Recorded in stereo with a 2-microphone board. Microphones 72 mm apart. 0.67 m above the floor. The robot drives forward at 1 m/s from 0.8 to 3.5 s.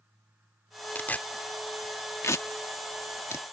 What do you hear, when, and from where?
0.9 s tearing paper: 25° left (ahead or behind); by 3.4 s 35° left (ahead or behind)